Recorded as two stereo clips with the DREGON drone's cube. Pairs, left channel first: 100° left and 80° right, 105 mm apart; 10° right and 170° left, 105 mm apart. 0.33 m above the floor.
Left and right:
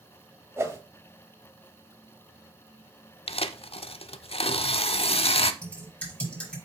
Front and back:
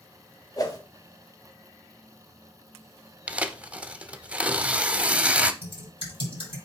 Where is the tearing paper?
95° left, 0.5 m.